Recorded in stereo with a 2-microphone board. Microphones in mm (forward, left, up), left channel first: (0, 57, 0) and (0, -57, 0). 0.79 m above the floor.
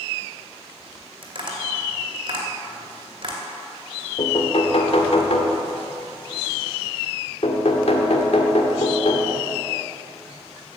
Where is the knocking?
65° left (ahead or behind), 1.6 m.